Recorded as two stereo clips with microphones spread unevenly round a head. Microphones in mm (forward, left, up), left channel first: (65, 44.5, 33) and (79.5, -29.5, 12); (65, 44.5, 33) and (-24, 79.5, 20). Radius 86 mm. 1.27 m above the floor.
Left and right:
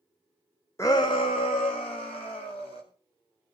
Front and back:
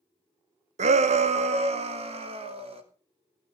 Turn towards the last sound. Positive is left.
turn(degrees=140)